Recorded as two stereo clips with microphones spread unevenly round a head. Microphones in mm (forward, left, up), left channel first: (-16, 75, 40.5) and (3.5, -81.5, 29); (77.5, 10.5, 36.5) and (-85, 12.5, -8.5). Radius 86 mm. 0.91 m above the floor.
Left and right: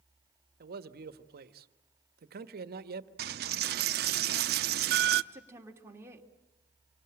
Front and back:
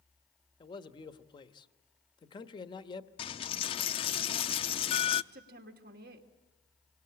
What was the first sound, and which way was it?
A man speaking, 70° right.